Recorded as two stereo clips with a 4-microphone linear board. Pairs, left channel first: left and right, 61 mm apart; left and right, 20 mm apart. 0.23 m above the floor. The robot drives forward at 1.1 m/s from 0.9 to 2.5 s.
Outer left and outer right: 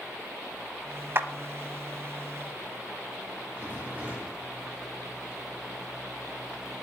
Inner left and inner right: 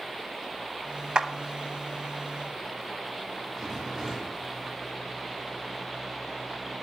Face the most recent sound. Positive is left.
turn(degrees=-30)  # may be behind; listen again after turning